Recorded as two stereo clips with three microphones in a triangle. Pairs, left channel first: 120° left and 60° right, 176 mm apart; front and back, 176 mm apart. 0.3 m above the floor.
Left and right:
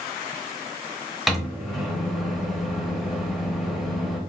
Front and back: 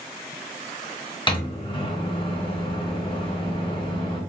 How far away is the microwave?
About 0.7 m.